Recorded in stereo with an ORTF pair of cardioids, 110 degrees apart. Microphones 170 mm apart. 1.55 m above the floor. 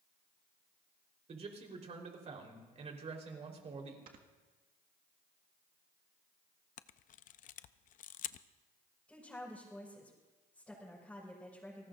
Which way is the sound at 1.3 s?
40° right.